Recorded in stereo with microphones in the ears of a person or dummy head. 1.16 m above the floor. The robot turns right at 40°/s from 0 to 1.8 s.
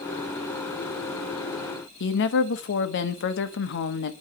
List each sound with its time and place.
2.0 s a woman speaking: 55° left (ahead or behind), 1.0 m